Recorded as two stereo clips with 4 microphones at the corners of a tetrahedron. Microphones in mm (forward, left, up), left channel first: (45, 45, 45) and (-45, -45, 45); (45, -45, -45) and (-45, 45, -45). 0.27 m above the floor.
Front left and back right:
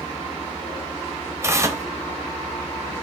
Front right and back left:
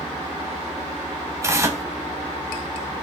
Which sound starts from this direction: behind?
Tearing paper, at 1.4 s.